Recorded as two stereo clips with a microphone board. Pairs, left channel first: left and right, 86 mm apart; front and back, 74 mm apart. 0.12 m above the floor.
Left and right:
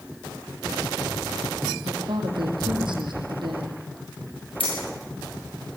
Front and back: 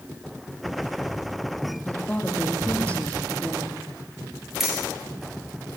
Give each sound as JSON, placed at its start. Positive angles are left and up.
{"t": 1.9, "sound": "a woman speaking", "azimuth_deg": -70, "distance_m": 5.5}
{"t": 4.6, "sound": "keys jangling", "azimuth_deg": 95, "distance_m": 7.0}